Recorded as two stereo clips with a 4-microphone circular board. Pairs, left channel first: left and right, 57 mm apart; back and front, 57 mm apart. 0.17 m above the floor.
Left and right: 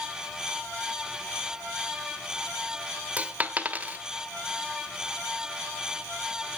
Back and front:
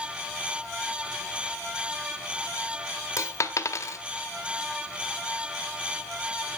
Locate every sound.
3.2 s a dropped coin: 155° right, 0.8 m